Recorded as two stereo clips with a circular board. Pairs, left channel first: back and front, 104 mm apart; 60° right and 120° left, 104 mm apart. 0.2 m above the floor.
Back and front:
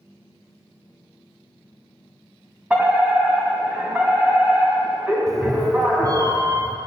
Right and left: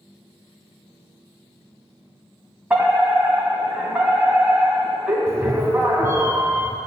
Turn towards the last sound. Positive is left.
turn(degrees=50)